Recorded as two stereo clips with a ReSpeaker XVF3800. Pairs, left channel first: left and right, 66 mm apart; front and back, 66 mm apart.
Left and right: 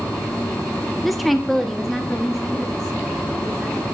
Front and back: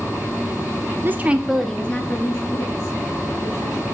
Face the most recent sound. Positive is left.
turn(degrees=5)